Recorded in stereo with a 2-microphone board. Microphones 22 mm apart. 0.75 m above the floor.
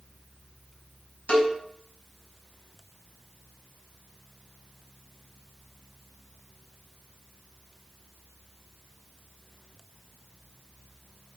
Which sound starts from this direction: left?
A cowbell, at 1.3 s.